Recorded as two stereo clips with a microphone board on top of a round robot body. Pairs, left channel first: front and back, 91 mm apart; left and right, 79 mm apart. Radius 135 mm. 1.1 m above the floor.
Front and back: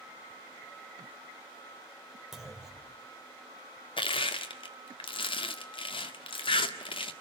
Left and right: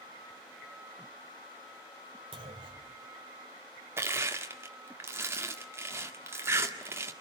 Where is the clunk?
95° right, 3 m.